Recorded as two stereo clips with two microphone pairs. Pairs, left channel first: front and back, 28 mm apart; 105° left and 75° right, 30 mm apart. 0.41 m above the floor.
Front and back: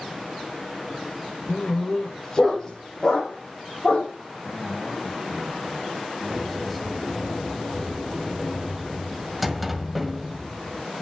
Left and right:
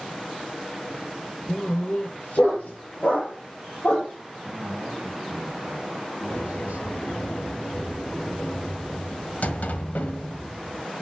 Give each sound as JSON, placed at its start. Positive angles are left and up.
{"t": 1.5, "sound": "a dog barking", "azimuth_deg": 75, "distance_m": 2.5}
{"t": 4.4, "sound": "a man speaking", "azimuth_deg": -80, "distance_m": 2.5}
{"t": 6.3, "sound": "a sliding door", "azimuth_deg": 95, "distance_m": 1.5}